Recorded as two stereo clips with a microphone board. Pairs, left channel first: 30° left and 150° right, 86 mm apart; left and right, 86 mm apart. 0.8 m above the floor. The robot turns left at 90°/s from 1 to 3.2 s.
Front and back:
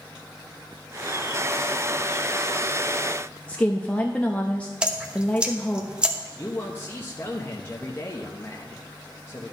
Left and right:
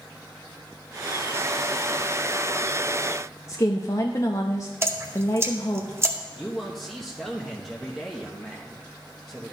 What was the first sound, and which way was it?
A woman speaking, 95° left.